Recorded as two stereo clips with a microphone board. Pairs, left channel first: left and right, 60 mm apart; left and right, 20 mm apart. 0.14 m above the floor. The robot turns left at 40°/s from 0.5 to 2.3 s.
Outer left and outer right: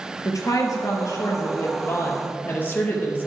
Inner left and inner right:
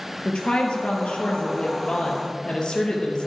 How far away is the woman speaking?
About 2.5 m.